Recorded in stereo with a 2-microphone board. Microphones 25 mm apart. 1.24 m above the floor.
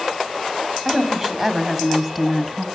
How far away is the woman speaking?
About 2.5 m.